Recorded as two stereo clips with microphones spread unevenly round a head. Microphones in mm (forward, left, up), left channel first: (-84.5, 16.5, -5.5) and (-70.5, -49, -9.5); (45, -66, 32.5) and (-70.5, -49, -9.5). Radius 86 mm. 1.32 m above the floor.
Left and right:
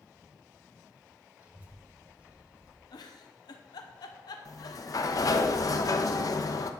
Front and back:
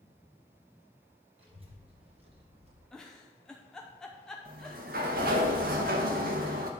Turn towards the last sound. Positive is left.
turn(degrees=130)